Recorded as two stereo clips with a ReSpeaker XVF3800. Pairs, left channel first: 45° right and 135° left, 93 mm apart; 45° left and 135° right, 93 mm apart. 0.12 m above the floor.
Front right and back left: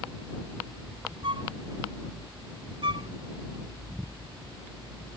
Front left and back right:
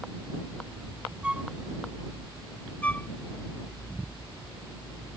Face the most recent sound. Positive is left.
turn(degrees=120)